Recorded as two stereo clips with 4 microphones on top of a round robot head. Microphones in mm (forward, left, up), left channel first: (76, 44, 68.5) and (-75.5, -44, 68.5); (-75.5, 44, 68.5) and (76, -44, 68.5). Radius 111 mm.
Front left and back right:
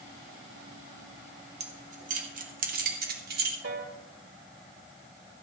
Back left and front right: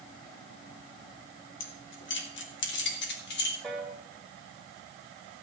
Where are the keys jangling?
155° left, 2 m; by 3.5 s 175° left, 3 m.